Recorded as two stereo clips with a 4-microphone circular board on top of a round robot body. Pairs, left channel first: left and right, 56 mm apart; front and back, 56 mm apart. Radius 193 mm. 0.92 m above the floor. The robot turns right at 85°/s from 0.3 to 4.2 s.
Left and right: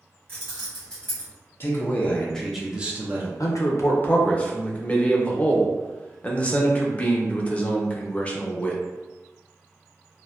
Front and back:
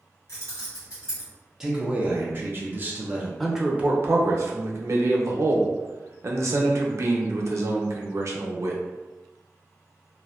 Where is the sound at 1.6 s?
105° left, 0.8 m; by 3.3 s 110° right, 0.8 m.